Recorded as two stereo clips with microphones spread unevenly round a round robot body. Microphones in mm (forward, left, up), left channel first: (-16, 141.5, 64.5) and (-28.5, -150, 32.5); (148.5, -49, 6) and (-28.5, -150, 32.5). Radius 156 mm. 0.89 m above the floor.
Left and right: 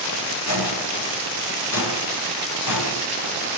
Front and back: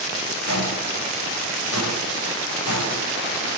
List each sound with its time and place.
0.5 s footsteps: 45° left, 6.5 m; by 3.0 s 55° left, 5 m